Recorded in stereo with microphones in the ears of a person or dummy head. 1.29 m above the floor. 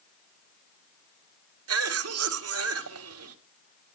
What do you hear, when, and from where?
1.7 s a cough: 75° right (ahead or behind), 1.7 m